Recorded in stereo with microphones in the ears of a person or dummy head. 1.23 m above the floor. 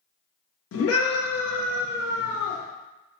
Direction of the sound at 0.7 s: 70° left (ahead or behind).